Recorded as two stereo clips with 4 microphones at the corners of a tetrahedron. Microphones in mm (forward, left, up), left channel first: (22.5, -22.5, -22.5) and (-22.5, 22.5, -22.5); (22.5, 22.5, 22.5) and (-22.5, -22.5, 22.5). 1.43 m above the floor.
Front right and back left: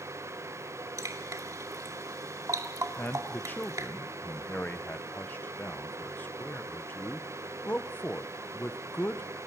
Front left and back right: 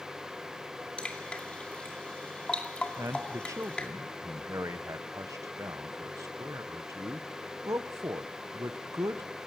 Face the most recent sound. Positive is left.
turn(degrees=-105)